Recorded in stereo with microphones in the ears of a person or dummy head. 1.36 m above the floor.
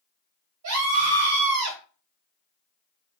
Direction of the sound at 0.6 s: 80° right.